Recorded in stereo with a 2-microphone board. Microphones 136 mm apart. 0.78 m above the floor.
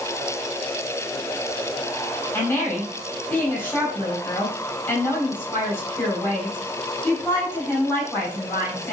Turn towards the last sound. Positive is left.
turn(degrees=15)  # may be behind; listen again after turning